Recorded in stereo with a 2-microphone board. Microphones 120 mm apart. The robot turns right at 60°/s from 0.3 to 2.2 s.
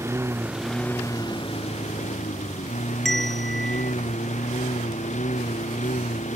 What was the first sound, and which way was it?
A lawn mower, 20° right.